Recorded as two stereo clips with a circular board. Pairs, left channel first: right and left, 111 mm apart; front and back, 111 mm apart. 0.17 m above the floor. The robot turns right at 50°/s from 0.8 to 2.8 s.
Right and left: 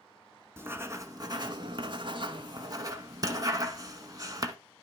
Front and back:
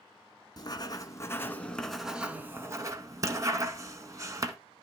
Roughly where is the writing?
Ahead left.